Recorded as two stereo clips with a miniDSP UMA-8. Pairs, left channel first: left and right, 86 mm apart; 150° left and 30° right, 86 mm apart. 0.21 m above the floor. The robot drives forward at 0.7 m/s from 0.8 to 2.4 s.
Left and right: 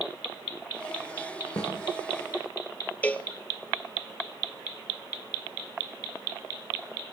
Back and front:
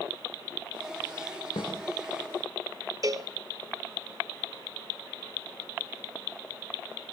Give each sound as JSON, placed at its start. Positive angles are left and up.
{"t": 1.6, "sound": "a snare drum", "azimuth_deg": 135, "distance_m": 7.0}
{"t": 3.0, "sound": "a cowbell", "azimuth_deg": 15, "distance_m": 1.0}